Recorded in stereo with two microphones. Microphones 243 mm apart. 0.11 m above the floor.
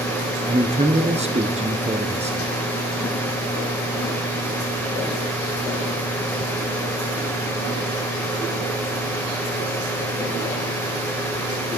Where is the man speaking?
25° right (ahead or behind), 1.1 m.